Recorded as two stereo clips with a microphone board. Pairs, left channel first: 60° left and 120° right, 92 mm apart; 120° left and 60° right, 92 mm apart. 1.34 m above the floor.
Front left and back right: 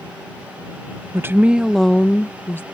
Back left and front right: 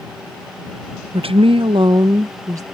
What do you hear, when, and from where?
1.1 s a woman speaking: 60° right; by 2.6 s 5° right